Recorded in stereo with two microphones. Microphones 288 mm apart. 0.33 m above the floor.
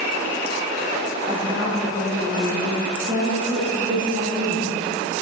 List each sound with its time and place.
1.3 s a woman speaking: 15° right (ahead or behind), 5.5 m